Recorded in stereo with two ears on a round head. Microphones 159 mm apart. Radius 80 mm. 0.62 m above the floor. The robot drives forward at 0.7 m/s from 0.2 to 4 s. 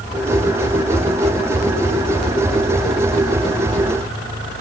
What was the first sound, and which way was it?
Only background noise.